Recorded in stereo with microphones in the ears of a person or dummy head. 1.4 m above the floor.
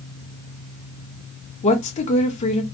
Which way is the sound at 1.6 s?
35° left (ahead or behind).